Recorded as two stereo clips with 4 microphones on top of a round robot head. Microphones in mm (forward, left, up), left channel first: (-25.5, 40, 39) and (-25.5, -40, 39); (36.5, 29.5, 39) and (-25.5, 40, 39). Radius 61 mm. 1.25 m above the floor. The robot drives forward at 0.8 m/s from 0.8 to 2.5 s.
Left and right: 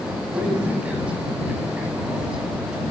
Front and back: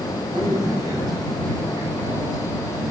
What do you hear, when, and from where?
0.3 s a man speaking: 165° right, 9 m; by 2.8 s 170° right, 10.5 m